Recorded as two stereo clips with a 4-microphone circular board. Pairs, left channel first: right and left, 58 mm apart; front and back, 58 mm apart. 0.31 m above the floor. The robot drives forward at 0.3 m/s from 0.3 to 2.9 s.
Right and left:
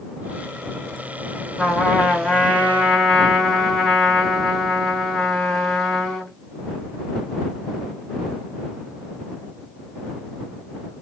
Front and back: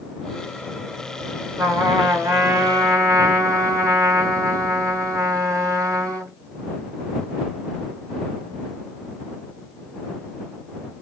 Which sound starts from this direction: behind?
A trumpet, at 1.6 s.